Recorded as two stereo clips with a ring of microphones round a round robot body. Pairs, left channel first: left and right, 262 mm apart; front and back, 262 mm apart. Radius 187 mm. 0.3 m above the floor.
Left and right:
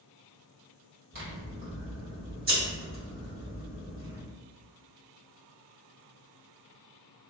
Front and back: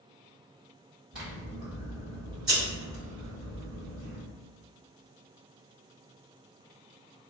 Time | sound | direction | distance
1.1 | scissors | 95° right | 1.6 m